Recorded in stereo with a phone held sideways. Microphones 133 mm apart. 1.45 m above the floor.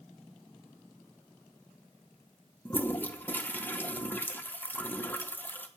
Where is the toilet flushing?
15° left (ahead or behind), 0.9 m.